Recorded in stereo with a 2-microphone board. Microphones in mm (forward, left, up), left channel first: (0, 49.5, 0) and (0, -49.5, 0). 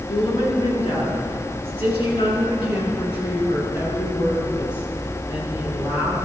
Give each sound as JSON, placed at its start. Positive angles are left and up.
{"t": 0.1, "sound": "a woman speaking", "side_deg": 60, "distance_m": 6.5}